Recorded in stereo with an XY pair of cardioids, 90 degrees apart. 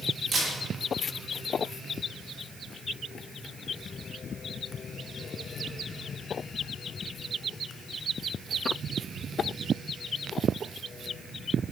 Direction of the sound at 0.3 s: 55° right.